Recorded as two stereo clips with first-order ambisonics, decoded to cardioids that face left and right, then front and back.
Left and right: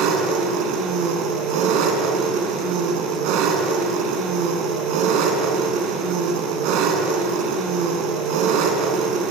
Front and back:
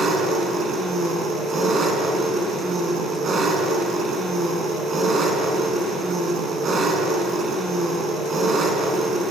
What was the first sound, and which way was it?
An engine running, 115° right.